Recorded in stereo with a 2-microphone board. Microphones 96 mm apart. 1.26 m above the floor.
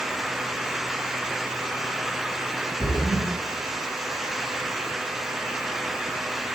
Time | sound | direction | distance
2.8 | a splash | 55° right (ahead or behind) | 2 m